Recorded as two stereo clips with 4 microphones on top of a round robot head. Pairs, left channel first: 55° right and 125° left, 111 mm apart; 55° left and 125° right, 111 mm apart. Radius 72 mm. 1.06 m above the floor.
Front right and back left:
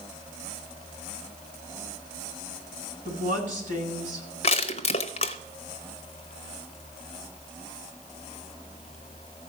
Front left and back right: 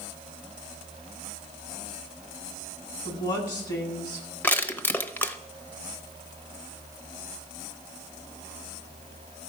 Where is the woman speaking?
110° left, 8 m.